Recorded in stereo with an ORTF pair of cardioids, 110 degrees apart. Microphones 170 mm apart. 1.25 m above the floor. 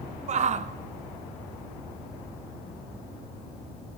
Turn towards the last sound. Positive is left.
turn(degrees=-40)